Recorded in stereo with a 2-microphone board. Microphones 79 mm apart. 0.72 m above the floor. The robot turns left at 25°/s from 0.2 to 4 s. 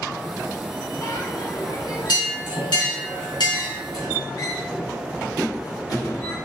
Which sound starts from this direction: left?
A bell, at 1.0 s.